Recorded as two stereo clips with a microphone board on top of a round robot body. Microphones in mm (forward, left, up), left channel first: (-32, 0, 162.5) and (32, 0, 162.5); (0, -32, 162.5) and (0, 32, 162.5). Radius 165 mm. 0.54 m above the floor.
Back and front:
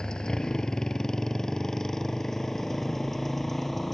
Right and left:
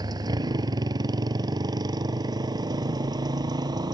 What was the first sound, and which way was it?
A motorcycle, 100° left.